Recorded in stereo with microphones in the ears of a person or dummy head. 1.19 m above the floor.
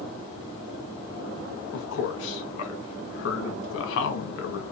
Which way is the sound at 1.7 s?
65° left (ahead or behind).